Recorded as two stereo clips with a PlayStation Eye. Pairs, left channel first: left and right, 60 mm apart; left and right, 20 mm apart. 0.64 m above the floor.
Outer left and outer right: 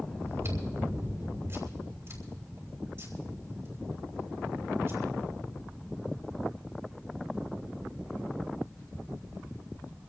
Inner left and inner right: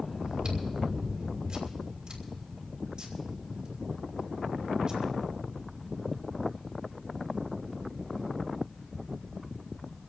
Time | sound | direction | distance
0.2 | chewing | 45° right (ahead or behind) | 4 m